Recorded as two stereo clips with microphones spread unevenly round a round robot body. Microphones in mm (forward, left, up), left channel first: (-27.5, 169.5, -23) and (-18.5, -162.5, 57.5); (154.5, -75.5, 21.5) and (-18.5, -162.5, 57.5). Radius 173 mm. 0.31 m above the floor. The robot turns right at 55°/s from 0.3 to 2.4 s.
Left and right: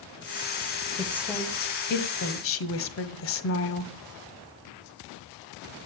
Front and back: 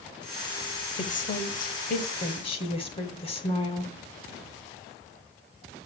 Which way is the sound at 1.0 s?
5° right.